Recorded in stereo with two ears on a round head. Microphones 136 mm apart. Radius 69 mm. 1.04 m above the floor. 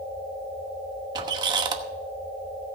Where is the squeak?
25° right (ahead or behind), 1.0 m.